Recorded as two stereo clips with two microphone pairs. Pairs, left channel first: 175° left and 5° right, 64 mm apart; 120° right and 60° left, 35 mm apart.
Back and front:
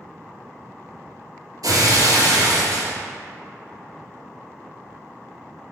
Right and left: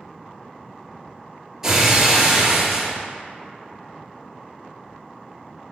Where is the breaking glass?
15° right, 2 m.